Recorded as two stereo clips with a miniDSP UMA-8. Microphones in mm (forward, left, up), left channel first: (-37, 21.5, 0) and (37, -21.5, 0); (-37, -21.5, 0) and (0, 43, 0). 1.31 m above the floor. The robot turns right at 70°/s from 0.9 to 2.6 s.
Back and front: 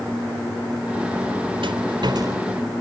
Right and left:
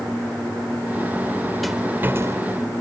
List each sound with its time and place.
1.6 s a rattle: 30° right; by 2.4 s 20° left